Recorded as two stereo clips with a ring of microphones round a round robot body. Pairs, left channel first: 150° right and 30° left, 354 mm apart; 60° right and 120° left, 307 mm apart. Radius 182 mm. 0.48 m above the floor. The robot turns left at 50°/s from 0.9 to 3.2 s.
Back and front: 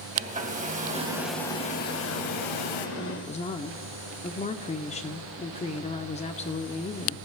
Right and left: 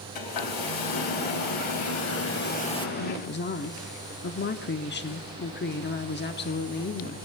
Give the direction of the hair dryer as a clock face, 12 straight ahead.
1 o'clock.